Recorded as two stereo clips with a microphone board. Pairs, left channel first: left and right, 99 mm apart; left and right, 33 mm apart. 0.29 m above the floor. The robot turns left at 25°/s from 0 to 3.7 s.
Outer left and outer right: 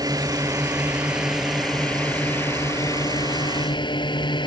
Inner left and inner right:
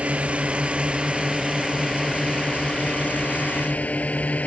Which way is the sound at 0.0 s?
140° right.